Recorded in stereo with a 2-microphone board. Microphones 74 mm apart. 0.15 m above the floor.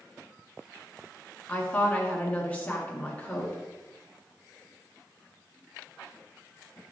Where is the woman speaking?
15° left (ahead or behind), 1.6 m.